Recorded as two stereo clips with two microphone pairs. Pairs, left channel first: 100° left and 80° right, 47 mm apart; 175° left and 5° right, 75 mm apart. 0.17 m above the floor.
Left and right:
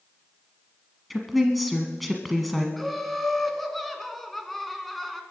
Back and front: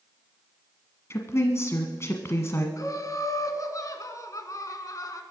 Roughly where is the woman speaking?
Behind.